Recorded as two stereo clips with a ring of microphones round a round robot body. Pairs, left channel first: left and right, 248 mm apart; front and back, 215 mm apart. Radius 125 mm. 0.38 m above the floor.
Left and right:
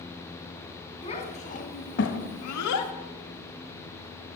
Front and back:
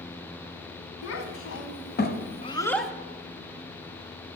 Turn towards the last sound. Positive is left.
turn(degrees=95)